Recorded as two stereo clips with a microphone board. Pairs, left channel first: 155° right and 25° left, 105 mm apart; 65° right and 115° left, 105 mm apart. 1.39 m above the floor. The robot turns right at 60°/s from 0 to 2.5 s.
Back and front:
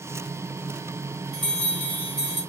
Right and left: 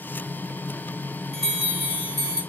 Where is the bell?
110° left, 1.6 m; by 2.4 s 175° left, 1.6 m.